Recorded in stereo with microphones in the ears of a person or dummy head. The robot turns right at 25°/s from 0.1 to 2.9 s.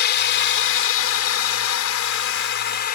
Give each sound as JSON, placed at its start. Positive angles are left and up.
{"t": 0.0, "sound": "a drone", "azimuth_deg": 60}